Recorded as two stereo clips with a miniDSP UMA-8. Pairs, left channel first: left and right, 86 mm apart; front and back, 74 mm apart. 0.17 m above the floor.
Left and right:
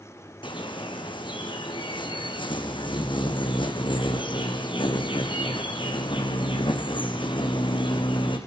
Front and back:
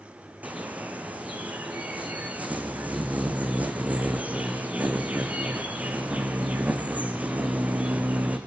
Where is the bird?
110° left, 2.5 m.